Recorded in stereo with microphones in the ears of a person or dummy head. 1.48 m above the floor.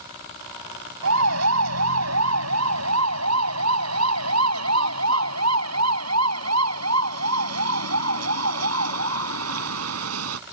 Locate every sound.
1.0 s a siren: 85° right; by 10.4 s 80° right